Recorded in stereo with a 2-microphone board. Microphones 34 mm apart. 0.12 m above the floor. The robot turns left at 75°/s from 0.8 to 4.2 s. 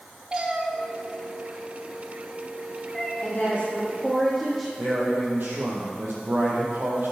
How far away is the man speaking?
About 4 m.